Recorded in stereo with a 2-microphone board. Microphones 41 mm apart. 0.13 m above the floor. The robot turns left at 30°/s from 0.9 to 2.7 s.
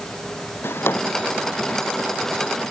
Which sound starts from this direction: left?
A drawer, at 0.6 s.